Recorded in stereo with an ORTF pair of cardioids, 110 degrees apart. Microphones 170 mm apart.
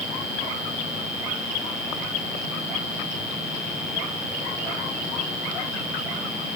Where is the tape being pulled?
I don't hear tape being pulled.